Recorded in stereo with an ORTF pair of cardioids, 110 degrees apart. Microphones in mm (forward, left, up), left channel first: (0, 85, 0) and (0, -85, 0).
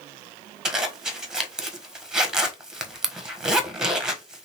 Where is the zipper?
5° right, 1.2 m.